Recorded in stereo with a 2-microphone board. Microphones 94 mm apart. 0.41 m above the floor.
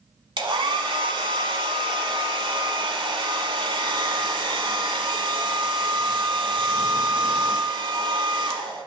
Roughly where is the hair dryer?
Right.